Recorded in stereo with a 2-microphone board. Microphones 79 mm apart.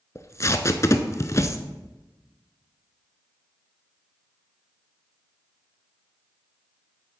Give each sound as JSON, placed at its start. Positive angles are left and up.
{"t": 0.1, "sound": "tape being pulled", "side_deg": 40, "distance_m": 0.7}